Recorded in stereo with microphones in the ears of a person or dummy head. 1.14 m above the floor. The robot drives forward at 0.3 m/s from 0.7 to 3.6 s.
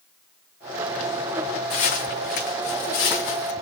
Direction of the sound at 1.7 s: 55° left (ahead or behind).